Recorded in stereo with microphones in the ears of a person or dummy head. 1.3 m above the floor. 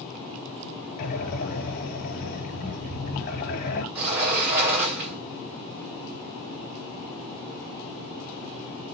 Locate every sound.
1.0 s breathing: 55° left (ahead or behind), 2.5 m
4.0 s a sliding door: 5° right (ahead or behind), 4.5 m